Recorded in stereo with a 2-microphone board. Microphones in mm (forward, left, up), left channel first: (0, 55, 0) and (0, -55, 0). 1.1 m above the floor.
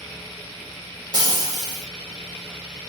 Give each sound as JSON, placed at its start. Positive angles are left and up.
{"t": 1.1, "sound": "frying", "side_deg": -40, "distance_m": 1.5}